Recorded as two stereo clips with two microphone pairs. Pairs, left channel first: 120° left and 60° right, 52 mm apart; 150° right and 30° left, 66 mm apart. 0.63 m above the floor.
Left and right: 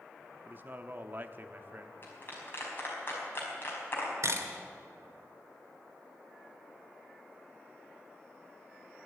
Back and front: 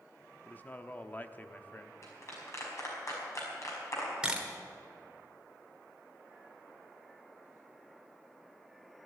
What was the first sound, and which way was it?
A man speaking, 100° right.